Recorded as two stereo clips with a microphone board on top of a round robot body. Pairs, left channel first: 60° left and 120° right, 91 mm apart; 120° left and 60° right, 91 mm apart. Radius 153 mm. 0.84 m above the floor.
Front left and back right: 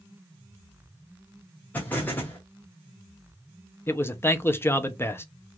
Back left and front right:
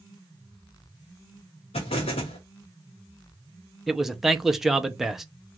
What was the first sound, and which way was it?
An explosion, 130° left.